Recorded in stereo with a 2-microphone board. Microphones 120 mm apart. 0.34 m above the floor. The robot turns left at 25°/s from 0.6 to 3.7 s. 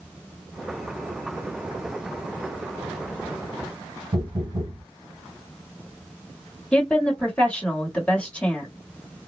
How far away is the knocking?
About 2.0 m.